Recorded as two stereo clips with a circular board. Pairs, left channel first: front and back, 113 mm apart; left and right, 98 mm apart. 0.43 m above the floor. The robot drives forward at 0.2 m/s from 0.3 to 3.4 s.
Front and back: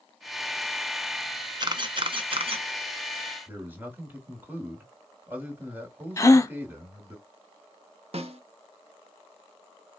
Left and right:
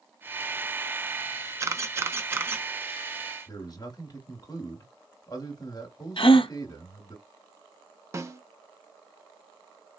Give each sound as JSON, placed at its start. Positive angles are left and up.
{"t": 1.6, "sound": "a camera shutter", "azimuth_deg": -140, "distance_m": 0.5}
{"t": 3.5, "sound": "a man speaking", "azimuth_deg": 115, "distance_m": 1.2}
{"t": 6.2, "sound": "a gasp", "azimuth_deg": 65, "distance_m": 0.5}
{"t": 8.1, "sound": "a snare drum", "azimuth_deg": -150, "distance_m": 0.7}